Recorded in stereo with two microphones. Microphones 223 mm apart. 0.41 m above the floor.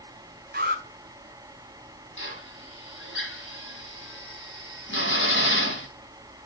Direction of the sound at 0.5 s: 45° right (ahead or behind).